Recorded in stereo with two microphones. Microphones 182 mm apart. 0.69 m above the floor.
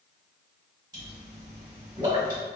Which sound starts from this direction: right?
A pop, at 0.9 s.